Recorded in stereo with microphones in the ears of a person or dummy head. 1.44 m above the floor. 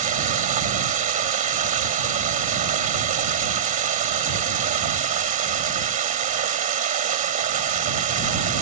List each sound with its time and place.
0.0 s running water: 40° right (ahead or behind)